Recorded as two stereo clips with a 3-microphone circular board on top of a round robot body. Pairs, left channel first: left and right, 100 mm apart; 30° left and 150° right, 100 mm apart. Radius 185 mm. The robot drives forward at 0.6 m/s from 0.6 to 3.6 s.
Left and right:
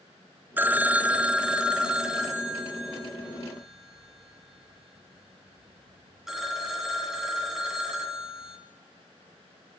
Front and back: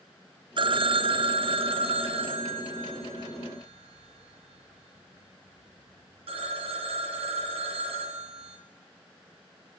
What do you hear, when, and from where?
0.6 s a phone ringing: 160° right, 0.6 m; by 8.6 s 175° right, 2.5 m